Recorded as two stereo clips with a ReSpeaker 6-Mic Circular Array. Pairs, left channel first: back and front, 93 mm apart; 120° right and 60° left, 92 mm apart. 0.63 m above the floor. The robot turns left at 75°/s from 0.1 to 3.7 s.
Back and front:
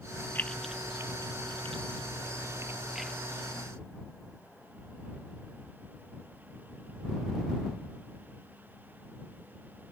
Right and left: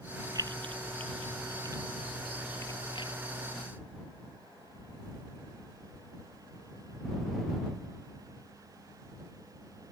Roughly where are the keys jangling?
Left.